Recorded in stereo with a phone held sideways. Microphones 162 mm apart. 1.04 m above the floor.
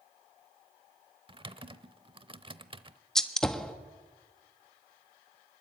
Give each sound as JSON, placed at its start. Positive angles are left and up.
{"t": 1.3, "sound": "typing on a keyboard", "side_deg": -30, "distance_m": 0.9}
{"t": 3.1, "sound": "a gunshot", "side_deg": 5, "distance_m": 1.3}